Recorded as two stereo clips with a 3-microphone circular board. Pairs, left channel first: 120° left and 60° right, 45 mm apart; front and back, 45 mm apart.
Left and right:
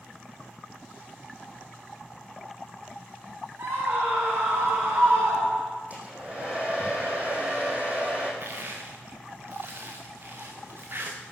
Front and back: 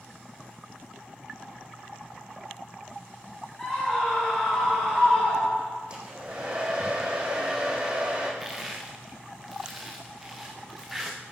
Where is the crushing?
95° right, 3.5 m.